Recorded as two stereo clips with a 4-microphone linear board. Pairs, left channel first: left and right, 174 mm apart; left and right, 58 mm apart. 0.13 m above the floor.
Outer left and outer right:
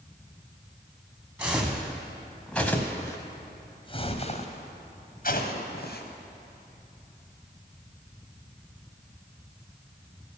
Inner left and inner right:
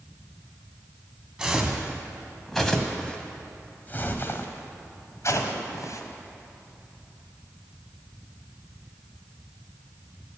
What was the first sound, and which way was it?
Footsteps, 10° right (ahead or behind).